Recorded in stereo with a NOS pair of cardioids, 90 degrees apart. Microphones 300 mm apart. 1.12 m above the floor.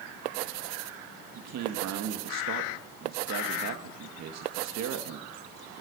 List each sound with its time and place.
1.4 s a man speaking: 65° right, 1.8 m